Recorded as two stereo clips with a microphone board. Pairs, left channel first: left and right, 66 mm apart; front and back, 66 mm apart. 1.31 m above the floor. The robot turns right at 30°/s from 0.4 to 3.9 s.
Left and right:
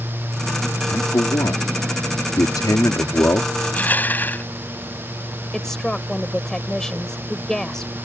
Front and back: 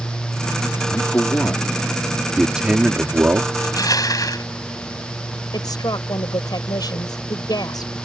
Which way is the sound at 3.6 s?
20° left.